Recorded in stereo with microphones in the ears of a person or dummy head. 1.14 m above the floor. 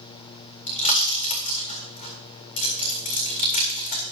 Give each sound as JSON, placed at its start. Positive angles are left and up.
{"t": 0.7, "sound": "a pop", "side_deg": 45, "distance_m": 3.5}